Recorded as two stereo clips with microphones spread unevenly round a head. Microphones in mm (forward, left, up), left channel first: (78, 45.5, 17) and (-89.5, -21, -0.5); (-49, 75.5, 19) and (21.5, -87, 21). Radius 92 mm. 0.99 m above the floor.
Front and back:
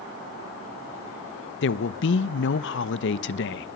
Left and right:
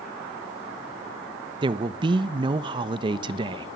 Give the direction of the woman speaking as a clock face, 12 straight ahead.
12 o'clock.